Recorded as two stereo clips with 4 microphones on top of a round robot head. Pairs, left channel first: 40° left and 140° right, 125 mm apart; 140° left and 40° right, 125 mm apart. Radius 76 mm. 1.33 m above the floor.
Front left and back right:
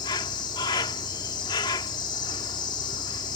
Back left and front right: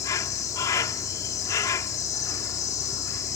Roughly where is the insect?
Left.